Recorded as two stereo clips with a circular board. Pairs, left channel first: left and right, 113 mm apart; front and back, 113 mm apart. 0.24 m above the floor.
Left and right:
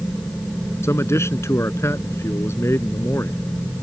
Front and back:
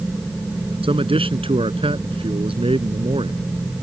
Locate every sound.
0.8 s a man speaking: 155° left